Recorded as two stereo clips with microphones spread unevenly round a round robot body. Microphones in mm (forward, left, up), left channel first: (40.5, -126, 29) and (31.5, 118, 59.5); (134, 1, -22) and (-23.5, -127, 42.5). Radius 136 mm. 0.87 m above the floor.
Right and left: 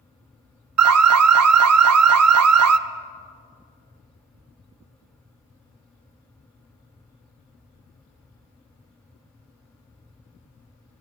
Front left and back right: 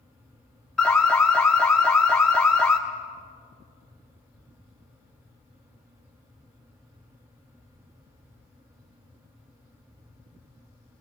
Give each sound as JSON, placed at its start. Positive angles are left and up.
{"t": 0.8, "sound": "an alarm", "azimuth_deg": 130, "distance_m": 0.6}